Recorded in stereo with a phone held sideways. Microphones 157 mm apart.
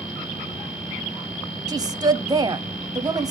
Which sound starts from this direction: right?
A woman speaking, at 1.7 s.